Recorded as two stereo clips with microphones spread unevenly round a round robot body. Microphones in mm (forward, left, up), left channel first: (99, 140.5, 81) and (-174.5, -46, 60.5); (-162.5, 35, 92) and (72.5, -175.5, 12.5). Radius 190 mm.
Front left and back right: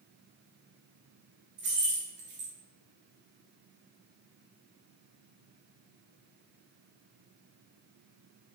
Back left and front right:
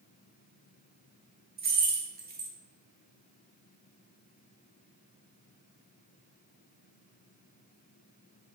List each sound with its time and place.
1.6 s keys jangling: 90° right, 0.9 m